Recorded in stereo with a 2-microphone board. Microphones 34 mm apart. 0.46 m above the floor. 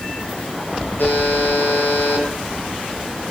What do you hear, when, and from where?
1.0 s a buzzer: 75° left (ahead or behind), 9 m